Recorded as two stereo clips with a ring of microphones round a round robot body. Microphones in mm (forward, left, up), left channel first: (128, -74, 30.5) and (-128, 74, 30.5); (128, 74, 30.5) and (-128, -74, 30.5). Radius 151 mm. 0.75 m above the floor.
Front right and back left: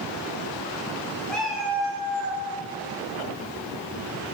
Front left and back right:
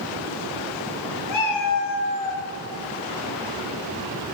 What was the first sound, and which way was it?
A cat meowing, 55° left.